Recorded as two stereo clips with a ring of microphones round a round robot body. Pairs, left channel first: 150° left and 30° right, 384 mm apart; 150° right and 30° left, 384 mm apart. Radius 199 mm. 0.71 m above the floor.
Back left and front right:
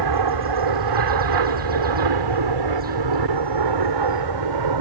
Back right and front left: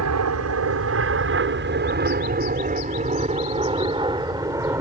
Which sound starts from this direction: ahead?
An aircraft, at 0.0 s.